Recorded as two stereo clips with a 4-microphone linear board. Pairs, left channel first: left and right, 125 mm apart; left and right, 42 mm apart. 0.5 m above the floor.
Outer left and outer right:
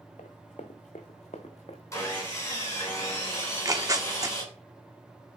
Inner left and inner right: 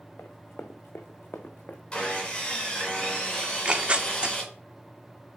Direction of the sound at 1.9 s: 25° left (ahead or behind).